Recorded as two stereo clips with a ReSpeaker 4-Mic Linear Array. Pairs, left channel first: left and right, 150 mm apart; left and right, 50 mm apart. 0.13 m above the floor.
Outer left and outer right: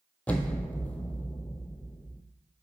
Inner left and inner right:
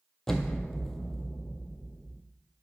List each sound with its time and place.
0.3 s an explosion: 10° left (ahead or behind), 0.9 m